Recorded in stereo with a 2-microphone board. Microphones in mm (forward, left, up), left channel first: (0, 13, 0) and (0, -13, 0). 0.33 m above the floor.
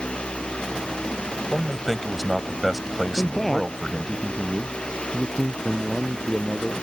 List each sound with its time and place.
1.5 s a man speaking: centre (ahead or behind)
3.2 s a man speaking: 10° left (ahead or behind)